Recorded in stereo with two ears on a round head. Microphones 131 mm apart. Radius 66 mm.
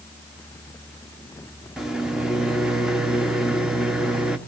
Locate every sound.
1.8 s a microwave: 5° right (ahead or behind), 0.9 m